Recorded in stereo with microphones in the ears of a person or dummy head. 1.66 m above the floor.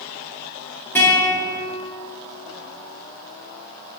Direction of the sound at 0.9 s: 10° left (ahead or behind).